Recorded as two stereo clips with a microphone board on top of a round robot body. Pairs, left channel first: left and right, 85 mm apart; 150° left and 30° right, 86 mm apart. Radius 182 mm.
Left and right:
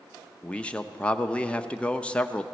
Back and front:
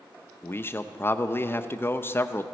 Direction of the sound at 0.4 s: 150° left.